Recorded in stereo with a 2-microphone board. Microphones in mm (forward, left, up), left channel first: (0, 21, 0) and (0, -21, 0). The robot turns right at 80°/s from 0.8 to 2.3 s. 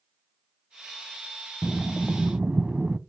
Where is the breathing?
165° left, 0.6 m; by 3.0 s 140° right, 0.6 m.